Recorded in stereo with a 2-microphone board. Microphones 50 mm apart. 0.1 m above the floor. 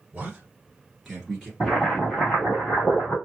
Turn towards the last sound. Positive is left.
turn(degrees=15)  # may be behind; listen again after turning